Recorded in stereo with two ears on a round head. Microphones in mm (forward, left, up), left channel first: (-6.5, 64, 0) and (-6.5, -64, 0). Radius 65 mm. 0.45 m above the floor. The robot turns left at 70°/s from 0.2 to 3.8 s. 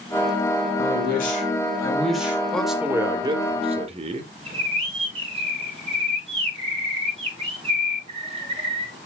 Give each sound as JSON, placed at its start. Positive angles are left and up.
{"t": 0.8, "sound": "a man speaking", "azimuth_deg": 95, "distance_m": 3.0}
{"t": 2.5, "sound": "a man speaking", "azimuth_deg": 10, "distance_m": 1.5}
{"t": 4.5, "sound": "a bird", "side_deg": -40, "distance_m": 7.0}